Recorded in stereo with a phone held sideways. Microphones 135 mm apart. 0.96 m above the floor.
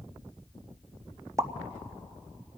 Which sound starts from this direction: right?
A pop, at 1.4 s.